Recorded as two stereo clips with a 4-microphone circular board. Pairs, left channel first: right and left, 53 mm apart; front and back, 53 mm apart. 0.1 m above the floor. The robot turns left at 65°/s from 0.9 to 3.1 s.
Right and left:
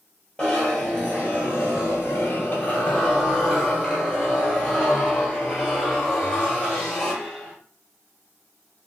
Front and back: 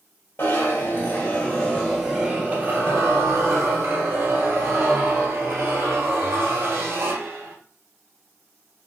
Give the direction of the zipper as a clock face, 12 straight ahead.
1 o'clock.